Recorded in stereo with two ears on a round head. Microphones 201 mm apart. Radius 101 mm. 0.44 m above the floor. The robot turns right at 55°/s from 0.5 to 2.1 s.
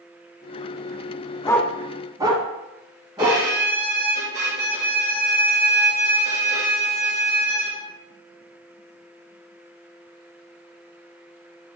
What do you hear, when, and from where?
1.4 s a dog barking: 20° left (ahead or behind), 1.5 m; by 3.4 s 20° right (ahead or behind), 1.5 m
3.2 s a violin: 50° right (ahead or behind), 3 m